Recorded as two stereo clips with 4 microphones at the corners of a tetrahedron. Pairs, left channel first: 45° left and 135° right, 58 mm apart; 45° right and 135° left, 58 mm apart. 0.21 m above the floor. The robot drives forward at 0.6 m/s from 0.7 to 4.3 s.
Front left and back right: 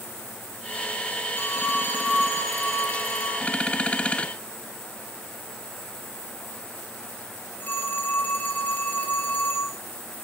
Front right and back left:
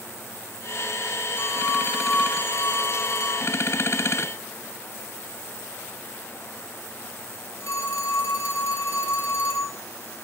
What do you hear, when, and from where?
1.4 s a phone ringing: 10° right, 5.5 m